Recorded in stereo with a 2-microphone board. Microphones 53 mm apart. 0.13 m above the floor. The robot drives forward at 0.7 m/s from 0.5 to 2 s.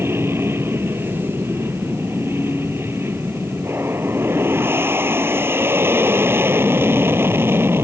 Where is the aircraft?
50° right (ahead or behind); by 7.8 s 45° right (ahead or behind).